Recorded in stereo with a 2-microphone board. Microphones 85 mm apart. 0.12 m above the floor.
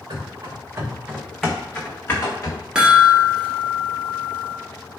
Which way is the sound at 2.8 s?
10° right (ahead or behind).